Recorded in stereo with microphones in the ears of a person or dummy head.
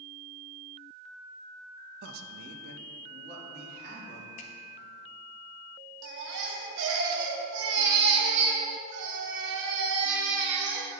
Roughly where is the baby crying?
Right.